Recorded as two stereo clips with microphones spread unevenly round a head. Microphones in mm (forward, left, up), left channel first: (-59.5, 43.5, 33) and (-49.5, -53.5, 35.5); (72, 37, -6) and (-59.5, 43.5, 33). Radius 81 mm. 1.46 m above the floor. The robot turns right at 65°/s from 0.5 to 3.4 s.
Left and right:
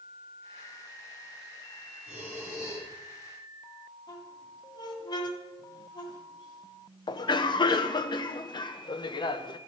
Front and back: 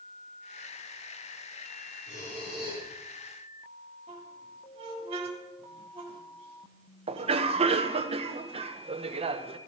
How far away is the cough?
About 0.9 m.